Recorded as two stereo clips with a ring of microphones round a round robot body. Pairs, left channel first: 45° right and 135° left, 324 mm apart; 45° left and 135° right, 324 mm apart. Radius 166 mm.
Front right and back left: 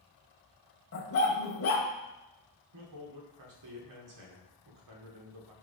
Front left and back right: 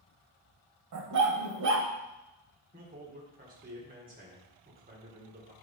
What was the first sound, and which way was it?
A dog barking, 95° right.